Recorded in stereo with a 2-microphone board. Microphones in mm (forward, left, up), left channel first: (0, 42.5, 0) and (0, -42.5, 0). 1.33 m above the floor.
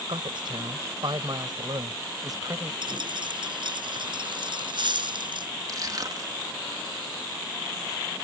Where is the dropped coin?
65° right (ahead or behind).